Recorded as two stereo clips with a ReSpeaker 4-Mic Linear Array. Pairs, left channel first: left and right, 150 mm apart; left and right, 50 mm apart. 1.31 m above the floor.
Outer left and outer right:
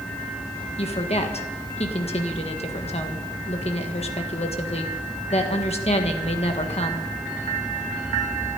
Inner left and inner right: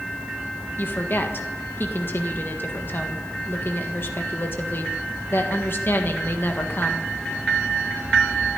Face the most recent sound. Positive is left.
turn(degrees=45)  # may be behind; listen again after turning